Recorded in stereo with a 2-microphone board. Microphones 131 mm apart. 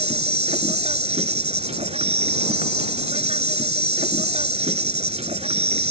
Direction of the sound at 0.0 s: 55° right (ahead or behind).